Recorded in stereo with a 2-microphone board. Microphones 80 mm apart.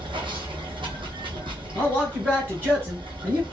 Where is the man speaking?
20° right (ahead or behind), 1.7 m.